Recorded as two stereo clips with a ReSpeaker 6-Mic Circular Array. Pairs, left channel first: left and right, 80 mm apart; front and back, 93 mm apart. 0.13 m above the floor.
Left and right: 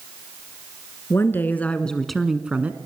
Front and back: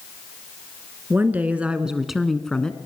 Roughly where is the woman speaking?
Behind left.